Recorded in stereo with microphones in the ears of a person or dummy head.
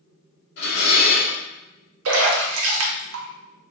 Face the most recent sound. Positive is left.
turn(degrees=-80)